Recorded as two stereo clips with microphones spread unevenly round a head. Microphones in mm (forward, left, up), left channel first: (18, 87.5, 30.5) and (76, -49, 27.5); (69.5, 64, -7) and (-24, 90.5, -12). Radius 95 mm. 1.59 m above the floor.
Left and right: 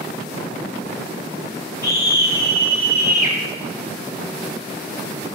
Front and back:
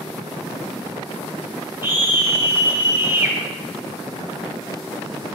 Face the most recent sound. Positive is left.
turn(degrees=100)